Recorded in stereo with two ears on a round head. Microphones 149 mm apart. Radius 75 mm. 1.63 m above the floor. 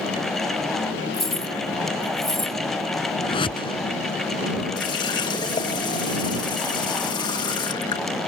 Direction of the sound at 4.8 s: 25° left (ahead or behind).